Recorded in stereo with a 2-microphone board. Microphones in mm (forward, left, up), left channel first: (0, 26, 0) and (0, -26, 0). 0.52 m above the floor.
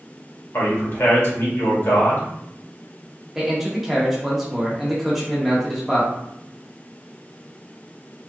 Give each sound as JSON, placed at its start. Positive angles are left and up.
{"t": 0.5, "sound": "a man speaking", "side_deg": 55, "distance_m": 1.7}
{"t": 3.4, "sound": "a man speaking", "side_deg": -5, "distance_m": 1.1}